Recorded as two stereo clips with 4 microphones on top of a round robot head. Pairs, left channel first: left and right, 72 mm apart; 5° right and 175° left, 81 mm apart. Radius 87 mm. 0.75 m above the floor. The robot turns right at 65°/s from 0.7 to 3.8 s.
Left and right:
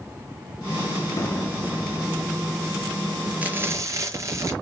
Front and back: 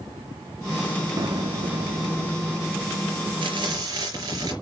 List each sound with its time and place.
1.2 s an explosion: 135° left, 2 m; by 3.4 s 80° right, 2 m
3.4 s frying: 160° right, 4.5 m; by 4.5 s 135° right, 4.5 m